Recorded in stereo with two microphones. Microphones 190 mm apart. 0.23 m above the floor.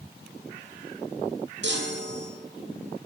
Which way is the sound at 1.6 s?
80° right.